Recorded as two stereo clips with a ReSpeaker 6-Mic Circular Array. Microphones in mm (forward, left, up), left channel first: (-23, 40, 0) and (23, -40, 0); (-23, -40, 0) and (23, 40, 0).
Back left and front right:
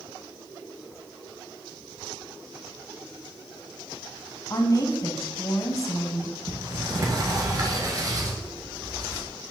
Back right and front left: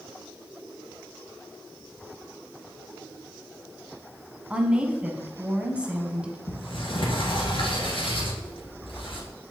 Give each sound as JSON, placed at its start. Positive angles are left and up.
{"t": 4.5, "sound": "a woman speaking", "azimuth_deg": 130, "distance_m": 1.2}
{"t": 6.5, "sound": "a sliding door", "azimuth_deg": -105, "distance_m": 1.9}